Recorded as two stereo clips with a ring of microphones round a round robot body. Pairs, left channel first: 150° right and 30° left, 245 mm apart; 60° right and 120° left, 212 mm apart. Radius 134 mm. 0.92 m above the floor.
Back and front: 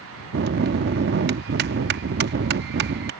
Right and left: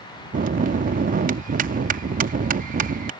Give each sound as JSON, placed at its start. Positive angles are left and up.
{"t": 0.3, "sound": "a bell", "azimuth_deg": 75}